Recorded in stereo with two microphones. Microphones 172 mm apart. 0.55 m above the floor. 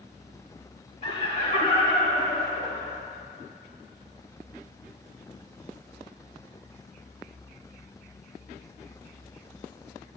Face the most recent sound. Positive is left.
turn(degrees=40)  # may be behind; listen again after turning